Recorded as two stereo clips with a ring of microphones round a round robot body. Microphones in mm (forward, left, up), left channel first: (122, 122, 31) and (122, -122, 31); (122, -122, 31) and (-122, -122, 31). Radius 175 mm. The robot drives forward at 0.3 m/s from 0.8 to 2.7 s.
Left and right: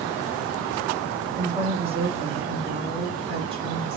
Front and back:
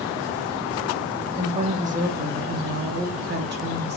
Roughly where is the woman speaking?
Behind right.